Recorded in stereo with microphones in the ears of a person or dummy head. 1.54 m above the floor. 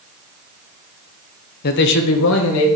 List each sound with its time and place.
1.6 s a man speaking: 55° left (ahead or behind), 0.8 m; by 2.7 s 80° left, 2.0 m